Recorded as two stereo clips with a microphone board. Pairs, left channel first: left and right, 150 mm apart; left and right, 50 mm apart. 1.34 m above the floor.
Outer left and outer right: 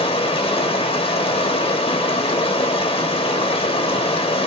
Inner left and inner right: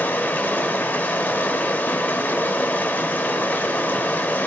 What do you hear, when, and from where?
0.0 s running water: 40° left (ahead or behind), 1.2 m